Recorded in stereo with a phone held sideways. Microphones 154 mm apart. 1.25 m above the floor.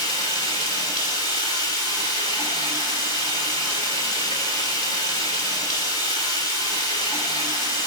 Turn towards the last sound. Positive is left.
turn(degrees=-35)  # may be behind; listen again after turning